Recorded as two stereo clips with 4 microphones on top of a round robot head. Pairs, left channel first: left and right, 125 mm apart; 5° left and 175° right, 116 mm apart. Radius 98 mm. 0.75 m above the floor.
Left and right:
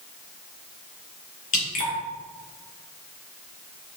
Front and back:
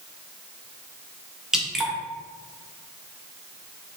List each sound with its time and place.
1.5 s dripping: 100° left, 1.2 m